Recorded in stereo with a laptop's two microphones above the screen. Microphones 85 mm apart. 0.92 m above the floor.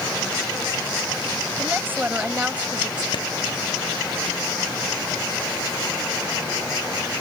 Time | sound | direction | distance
1.6 | a woman speaking | 25° right (ahead or behind) | ?
3.1 | a clap | 65° left (ahead or behind) | ?